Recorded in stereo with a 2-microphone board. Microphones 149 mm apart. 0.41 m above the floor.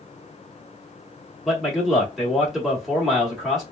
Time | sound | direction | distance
1.4 | a man speaking | centre (ahead or behind) | 1.2 m